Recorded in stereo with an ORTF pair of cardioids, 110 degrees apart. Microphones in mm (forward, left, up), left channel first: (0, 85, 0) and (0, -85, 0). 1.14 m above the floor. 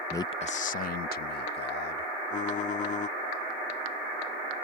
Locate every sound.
0.1 s a man speaking: 15° left; by 2.1 s 70° left
2.3 s typing on a keyboard: 45° left